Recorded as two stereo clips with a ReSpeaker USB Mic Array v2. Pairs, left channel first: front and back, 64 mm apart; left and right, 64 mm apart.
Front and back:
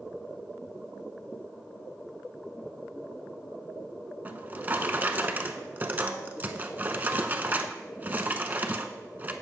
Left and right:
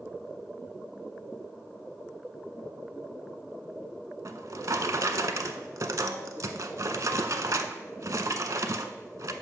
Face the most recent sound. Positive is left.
turn(degrees=-120)